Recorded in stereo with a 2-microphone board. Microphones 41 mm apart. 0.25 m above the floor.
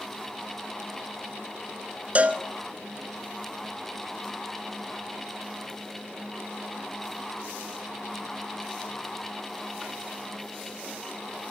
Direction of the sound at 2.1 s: 35° right (ahead or behind).